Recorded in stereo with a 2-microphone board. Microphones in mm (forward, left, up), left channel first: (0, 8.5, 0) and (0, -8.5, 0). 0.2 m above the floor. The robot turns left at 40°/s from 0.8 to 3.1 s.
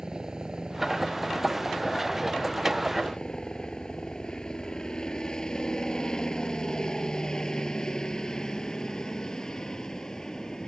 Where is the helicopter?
35° right (ahead or behind); by 10.7 s 35° left (ahead or behind).